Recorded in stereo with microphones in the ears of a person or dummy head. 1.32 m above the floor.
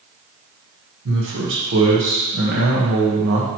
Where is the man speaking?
70° right (ahead or behind), 1.3 m.